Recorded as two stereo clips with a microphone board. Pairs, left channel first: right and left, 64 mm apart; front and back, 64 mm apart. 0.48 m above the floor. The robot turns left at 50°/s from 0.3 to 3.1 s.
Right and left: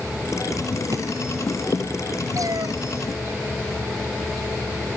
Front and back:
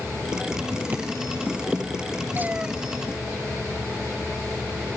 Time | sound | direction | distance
0.9 | a drawer | 120° left | ?
2.4 | a cat meowing | 120° left | ?